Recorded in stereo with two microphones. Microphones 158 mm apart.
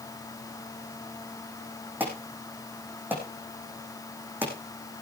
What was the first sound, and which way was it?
An alarm, 10° right (ahead or behind).